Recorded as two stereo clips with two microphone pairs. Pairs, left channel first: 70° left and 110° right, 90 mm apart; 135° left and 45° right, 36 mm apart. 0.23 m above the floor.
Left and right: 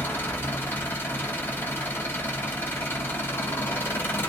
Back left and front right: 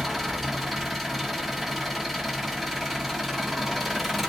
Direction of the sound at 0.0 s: 50° left.